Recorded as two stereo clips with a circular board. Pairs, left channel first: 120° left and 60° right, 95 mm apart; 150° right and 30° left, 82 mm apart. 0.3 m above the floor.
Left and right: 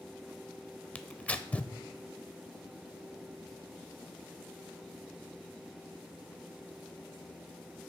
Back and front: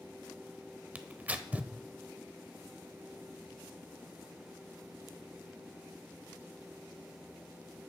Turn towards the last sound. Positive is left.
turn(degrees=70)